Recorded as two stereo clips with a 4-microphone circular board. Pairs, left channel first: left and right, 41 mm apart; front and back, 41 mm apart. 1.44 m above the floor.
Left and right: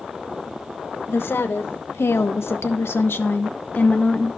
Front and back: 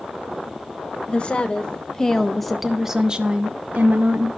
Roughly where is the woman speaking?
Ahead left.